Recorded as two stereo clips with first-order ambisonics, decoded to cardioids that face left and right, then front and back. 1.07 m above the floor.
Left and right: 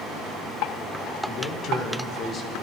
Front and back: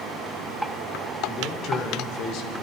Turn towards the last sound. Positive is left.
turn(degrees=25)